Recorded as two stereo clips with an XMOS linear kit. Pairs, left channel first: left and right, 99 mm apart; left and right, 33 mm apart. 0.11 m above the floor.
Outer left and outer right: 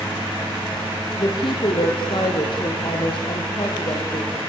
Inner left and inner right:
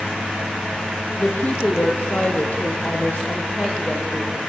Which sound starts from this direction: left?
A woman speaking, at 1.2 s.